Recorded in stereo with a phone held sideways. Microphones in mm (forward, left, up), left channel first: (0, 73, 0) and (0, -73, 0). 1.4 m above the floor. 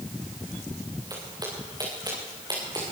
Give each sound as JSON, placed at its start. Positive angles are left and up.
{"t": 1.1, "sound": "footsteps", "side_deg": -30, "distance_m": 9.5}